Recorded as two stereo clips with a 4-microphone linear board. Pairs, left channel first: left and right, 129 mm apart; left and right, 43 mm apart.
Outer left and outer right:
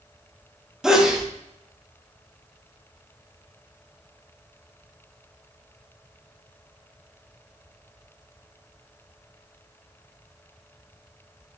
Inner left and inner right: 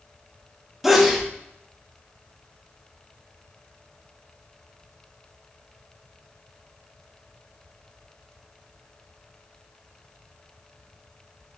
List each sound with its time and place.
0.8 s a sneeze: 5° right (ahead or behind), 1.3 m